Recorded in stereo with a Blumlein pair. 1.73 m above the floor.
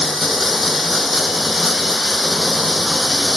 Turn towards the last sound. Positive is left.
turn(degrees=10)